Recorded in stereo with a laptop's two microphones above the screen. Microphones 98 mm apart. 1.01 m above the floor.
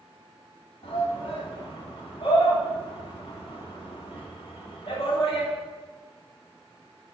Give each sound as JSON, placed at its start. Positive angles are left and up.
{"t": 0.8, "sound": "a shout", "side_deg": 65, "distance_m": 2.5}